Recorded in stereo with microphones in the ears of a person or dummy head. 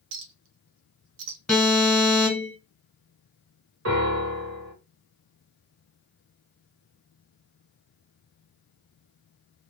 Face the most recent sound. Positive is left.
turn(degrees=-70)  # may be behind; listen again after turning